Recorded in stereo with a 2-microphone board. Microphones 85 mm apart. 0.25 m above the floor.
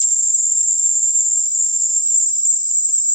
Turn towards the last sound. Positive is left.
turn(degrees=60)  # may be behind; listen again after turning